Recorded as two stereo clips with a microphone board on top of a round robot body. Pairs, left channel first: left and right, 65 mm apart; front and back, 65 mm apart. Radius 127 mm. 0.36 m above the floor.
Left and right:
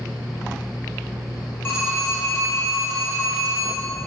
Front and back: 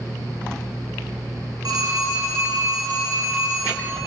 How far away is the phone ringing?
About 3 m.